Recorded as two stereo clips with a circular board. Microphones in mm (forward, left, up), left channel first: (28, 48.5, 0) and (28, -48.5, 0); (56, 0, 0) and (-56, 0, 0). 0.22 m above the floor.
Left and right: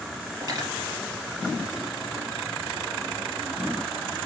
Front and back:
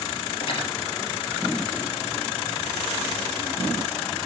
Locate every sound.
0.4 s cutlery clinking: 40° right, 3 m